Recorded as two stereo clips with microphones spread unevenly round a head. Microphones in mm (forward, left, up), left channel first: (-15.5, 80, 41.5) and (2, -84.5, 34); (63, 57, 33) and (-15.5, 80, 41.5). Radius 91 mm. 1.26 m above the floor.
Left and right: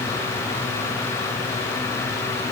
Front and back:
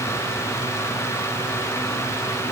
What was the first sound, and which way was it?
Only background noise.